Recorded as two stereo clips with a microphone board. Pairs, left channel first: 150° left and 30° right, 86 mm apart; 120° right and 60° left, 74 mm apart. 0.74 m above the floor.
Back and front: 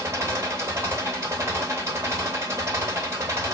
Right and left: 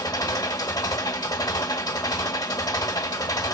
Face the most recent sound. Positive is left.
turn(degrees=-90)